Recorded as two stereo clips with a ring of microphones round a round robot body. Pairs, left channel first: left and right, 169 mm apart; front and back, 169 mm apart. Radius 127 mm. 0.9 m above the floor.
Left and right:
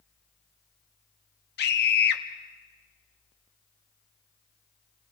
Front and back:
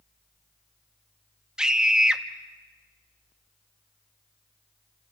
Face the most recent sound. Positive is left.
turn(degrees=95)